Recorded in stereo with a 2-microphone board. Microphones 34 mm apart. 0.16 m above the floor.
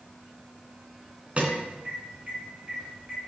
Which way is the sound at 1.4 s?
35° right (ahead or behind).